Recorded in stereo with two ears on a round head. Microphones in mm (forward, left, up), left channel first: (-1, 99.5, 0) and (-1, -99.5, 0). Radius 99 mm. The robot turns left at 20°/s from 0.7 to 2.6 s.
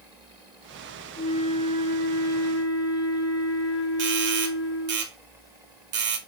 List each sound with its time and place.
1.2 s a flute: 25° left (ahead or behind), 3 m; by 5.0 s 55° left (ahead or behind), 3 m
4.0 s a doorbell: 55° right (ahead or behind), 3 m